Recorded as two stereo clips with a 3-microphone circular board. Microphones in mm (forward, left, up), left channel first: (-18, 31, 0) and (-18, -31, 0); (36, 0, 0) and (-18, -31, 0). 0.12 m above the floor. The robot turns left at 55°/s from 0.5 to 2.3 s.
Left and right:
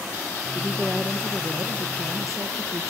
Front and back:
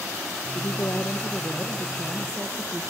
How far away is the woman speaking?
About 3.5 m.